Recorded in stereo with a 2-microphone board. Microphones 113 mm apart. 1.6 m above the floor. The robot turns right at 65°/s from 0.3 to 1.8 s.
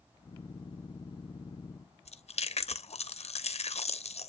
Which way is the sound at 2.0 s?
70° left (ahead or behind).